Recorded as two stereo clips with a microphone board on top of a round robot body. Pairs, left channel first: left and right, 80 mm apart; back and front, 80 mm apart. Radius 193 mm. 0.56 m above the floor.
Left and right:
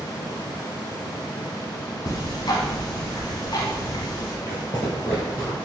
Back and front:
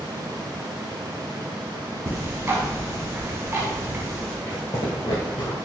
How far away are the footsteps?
About 0.5 m.